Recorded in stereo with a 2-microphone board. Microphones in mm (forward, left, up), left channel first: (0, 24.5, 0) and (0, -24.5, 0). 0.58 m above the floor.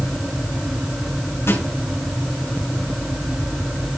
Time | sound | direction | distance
1.5 | a snare drum | 65° left (ahead or behind) | 4.5 m